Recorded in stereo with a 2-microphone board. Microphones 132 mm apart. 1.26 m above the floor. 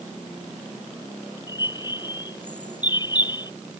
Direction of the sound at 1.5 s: 35° left (ahead or behind).